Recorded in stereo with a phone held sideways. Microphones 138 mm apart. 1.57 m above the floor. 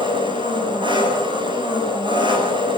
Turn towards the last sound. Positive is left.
turn(degrees=-35)  # may be behind; listen again after turning